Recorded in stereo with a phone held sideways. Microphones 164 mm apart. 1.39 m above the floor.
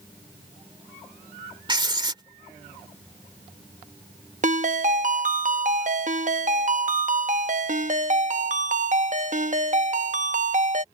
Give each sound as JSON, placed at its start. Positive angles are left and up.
{"t": 1.7, "sound": "writing", "side_deg": -30}
{"t": 4.4, "sound": "a ringtone", "side_deg": -50}